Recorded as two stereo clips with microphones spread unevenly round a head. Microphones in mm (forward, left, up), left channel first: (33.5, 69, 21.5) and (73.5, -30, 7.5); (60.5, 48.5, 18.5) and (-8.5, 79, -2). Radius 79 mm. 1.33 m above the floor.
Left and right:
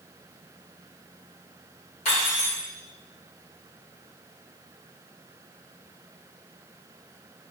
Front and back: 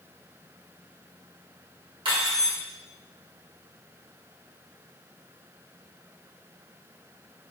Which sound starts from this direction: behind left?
Cutlery clinking, at 2.0 s.